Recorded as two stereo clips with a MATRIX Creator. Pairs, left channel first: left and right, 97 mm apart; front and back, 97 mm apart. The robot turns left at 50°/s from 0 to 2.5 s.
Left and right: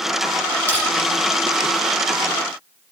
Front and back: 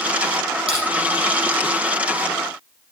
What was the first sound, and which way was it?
Crushing, 155° left.